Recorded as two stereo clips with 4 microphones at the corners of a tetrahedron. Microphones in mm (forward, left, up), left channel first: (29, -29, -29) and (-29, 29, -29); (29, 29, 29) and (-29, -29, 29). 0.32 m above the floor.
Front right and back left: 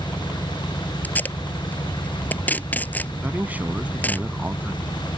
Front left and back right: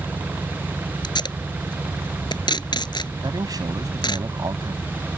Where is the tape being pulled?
25° left.